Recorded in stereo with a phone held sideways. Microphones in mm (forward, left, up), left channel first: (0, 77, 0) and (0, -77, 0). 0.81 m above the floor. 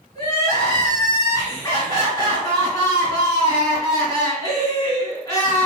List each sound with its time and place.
0.1 s crying: 25° left (ahead or behind), 1.9 m